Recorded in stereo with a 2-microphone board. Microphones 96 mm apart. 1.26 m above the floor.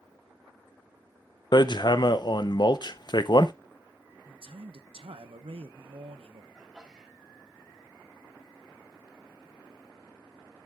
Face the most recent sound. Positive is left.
turn(degrees=-10)  # may be behind; listen again after turning